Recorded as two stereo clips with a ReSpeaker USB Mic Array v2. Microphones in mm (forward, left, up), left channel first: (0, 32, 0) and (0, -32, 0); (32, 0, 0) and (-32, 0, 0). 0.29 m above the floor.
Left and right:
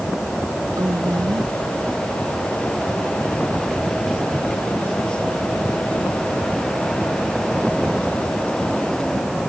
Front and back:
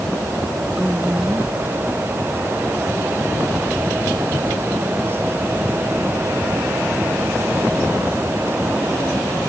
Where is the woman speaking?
105° right.